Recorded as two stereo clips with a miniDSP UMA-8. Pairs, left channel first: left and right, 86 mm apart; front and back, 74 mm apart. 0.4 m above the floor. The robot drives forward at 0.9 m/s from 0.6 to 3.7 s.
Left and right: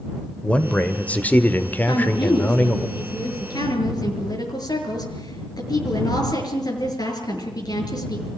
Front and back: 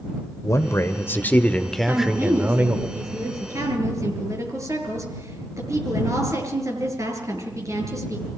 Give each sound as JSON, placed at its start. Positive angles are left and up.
{"t": 0.4, "sound": "a man speaking", "azimuth_deg": 20, "distance_m": 1.8}
{"t": 1.9, "sound": "a woman speaking", "azimuth_deg": 120, "distance_m": 6.0}